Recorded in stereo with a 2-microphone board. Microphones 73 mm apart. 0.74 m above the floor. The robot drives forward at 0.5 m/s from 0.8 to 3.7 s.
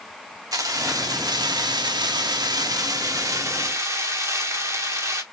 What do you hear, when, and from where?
0.5 s keys jangling: 55° right (ahead or behind), 1.1 m; by 5.2 s 40° right (ahead or behind), 1.3 m